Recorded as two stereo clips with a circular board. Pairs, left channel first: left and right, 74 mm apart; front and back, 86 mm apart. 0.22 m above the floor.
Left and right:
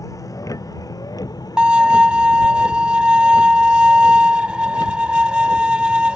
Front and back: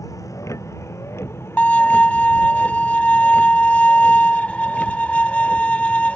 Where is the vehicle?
50° left; by 6.2 s 80° left.